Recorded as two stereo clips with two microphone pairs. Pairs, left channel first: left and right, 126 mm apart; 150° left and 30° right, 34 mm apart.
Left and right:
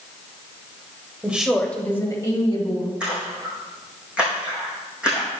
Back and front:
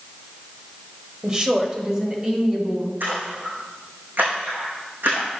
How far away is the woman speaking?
About 1.4 m.